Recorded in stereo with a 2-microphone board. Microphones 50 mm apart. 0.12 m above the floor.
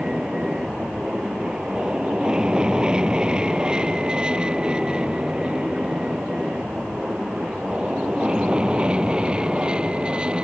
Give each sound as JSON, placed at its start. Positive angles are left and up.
{"t": 0.0, "sound": "an aircraft", "side_deg": -15}